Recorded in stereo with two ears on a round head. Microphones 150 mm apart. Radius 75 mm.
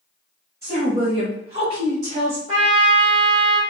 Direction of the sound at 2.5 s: 30° right (ahead or behind).